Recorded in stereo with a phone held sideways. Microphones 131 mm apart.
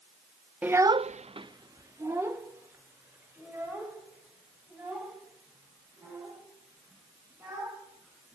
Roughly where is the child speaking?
Centre.